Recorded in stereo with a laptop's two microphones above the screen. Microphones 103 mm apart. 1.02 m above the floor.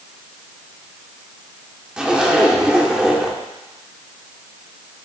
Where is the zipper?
5° right (ahead or behind), 0.8 m.